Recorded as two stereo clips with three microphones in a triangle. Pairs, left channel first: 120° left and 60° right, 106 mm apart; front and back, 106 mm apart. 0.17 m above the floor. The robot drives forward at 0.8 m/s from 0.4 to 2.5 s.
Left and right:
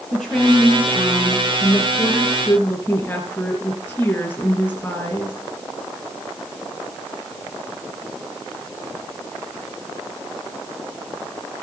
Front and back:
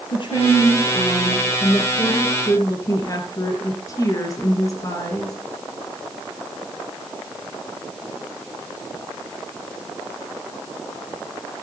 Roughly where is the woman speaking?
Ahead left.